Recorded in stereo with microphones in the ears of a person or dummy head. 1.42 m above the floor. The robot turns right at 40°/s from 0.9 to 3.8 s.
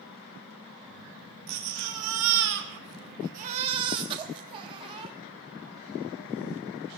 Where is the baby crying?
120° right, 1.4 m; by 5.2 s 25° right, 1.4 m.